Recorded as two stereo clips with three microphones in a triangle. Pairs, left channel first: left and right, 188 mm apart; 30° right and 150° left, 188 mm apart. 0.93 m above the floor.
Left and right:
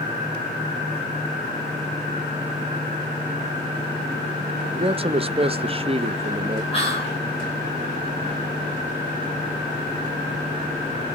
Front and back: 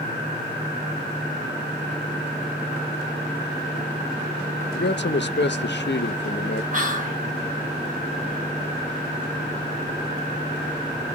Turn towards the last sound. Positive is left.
turn(degrees=135)